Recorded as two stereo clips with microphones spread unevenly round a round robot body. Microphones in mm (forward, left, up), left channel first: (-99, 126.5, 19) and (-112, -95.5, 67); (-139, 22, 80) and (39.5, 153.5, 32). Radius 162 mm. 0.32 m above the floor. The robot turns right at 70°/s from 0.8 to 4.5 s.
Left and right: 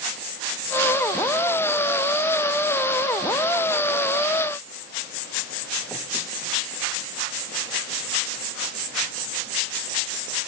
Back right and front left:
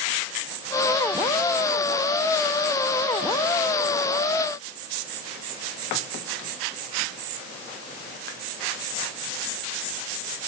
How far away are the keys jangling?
No keys jangling in this recording.